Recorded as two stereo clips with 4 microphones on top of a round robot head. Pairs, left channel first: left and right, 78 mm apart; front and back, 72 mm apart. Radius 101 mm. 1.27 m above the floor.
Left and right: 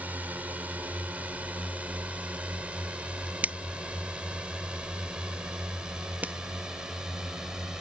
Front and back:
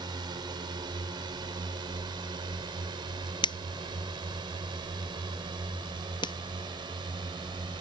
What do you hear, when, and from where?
0.0 s a drone: 160° right; by 7.8 s 170° right
3.4 s a finger snap: 15° right